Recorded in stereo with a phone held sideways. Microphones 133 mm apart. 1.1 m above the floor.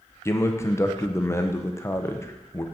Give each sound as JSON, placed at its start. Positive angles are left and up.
{"t": 0.2, "sound": "a man speaking", "side_deg": 20, "distance_m": 0.6}